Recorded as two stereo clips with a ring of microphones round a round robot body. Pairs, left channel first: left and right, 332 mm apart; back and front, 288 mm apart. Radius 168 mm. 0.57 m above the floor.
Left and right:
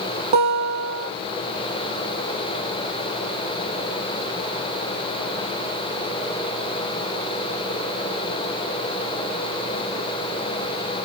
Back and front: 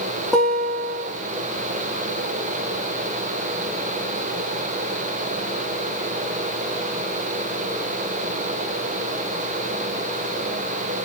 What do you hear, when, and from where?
0.3 s a guitar: 90° right, 9 m